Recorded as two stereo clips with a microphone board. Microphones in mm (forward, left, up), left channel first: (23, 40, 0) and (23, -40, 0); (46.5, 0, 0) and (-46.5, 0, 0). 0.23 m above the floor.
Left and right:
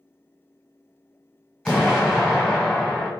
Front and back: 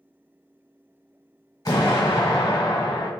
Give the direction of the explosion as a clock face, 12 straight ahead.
12 o'clock.